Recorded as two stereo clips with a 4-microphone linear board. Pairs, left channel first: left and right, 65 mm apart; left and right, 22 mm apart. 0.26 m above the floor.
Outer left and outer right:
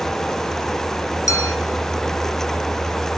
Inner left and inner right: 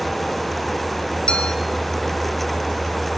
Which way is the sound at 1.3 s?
55° left (ahead or behind).